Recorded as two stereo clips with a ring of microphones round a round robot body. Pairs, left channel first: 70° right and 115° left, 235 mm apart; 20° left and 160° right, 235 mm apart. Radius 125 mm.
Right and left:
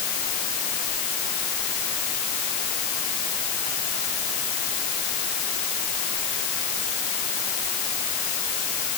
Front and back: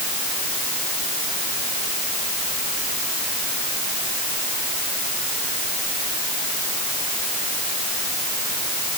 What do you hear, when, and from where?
Only background noise.